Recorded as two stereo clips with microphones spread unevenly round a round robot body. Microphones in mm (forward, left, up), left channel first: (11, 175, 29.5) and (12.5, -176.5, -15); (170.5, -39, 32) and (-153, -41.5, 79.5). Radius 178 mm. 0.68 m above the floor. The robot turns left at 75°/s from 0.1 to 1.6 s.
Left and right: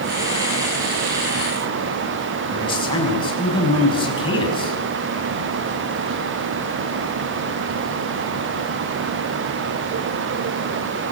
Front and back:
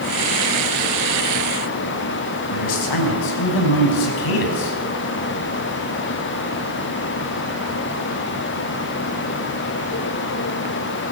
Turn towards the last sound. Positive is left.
turn(degrees=15)